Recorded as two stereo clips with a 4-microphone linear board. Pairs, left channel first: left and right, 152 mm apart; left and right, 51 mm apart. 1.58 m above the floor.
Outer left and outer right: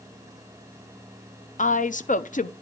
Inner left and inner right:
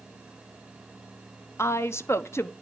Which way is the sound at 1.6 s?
55° left (ahead or behind).